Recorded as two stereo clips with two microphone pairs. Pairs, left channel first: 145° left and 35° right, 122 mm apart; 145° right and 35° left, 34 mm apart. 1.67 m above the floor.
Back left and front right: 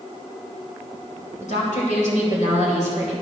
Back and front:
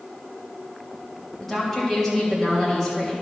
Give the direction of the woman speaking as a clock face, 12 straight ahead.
7 o'clock.